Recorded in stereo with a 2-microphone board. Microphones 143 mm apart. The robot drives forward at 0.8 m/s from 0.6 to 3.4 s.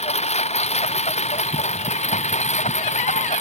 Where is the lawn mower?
50° left (ahead or behind); by 3.4 s 55° left (ahead or behind).